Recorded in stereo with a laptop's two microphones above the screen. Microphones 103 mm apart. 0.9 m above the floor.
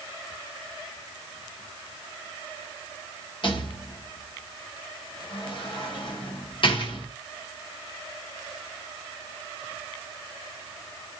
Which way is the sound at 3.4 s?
55° left (ahead or behind).